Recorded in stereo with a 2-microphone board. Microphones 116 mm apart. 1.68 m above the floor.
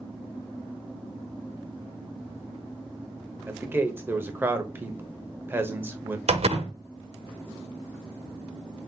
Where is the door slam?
60° right (ahead or behind), 1.0 m.